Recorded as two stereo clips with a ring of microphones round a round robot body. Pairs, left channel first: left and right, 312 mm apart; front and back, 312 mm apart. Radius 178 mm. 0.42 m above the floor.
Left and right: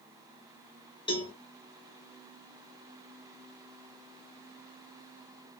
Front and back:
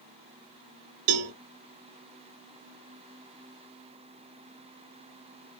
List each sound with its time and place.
1.1 s a cowbell: 165° left, 0.5 m